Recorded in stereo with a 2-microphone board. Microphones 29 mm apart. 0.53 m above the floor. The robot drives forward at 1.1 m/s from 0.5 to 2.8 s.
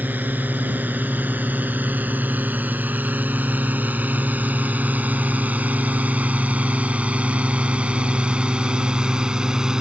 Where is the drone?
80° right; by 9.8 s 25° right (ahead or behind).